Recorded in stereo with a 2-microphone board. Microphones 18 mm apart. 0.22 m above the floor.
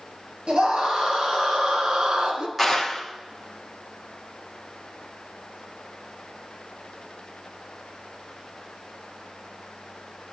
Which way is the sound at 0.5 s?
75° right (ahead or behind).